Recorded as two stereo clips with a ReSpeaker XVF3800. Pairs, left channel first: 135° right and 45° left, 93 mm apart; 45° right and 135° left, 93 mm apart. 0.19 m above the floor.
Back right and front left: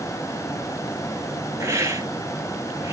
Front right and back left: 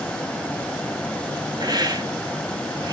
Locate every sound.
1.6 s a hiss: 100° left, 0.6 m